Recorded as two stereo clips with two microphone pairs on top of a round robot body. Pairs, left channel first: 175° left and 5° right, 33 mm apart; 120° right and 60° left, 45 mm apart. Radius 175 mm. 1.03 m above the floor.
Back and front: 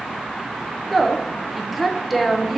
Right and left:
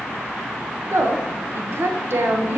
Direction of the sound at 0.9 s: 85° left.